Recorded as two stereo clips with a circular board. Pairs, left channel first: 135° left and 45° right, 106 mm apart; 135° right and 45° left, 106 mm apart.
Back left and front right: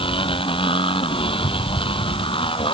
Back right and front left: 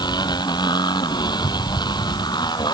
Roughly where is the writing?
No writing in this recording.